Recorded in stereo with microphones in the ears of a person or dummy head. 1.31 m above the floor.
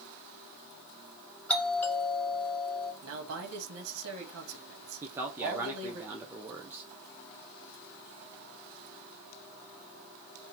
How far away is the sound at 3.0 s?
About 1.6 m.